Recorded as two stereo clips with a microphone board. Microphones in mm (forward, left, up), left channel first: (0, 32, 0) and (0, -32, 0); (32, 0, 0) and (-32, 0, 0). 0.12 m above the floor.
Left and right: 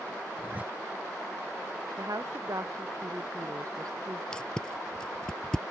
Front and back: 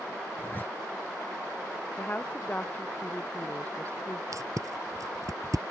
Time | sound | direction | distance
0.4 | a zipper | 40° right | ?
2.0 | a woman speaking | 65° right | ?
4.3 | tape being pulled | 165° left | ?